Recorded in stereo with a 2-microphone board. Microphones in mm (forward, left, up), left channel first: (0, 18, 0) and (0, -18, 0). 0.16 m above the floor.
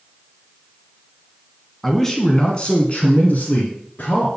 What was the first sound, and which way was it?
A man speaking, 5° left (ahead or behind).